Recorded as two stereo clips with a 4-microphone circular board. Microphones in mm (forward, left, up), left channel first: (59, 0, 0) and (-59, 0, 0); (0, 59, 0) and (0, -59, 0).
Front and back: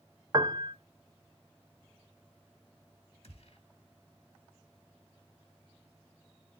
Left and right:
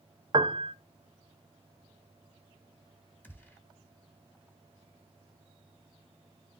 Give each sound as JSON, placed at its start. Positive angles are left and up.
{"t": 0.3, "sound": "a piano", "azimuth_deg": -130, "distance_m": 0.5}
{"t": 3.2, "sound": "a gunshot", "azimuth_deg": 20, "distance_m": 1.5}